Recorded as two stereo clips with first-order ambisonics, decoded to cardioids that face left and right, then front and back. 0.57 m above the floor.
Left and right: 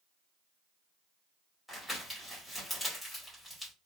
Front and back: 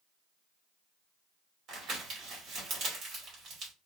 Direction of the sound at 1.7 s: Straight behind.